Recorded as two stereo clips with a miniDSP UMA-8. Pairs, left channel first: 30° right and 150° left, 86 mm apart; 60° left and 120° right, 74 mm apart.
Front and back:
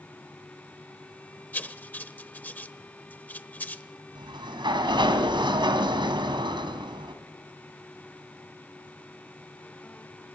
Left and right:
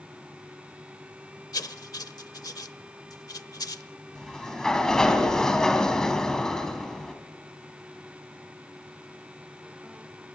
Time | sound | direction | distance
1.5 | writing | 40° left | 0.9 m
4.2 | a sliding door | 140° left | 2.5 m